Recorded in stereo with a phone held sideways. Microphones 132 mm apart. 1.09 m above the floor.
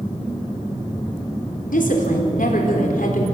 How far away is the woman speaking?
About 4 m.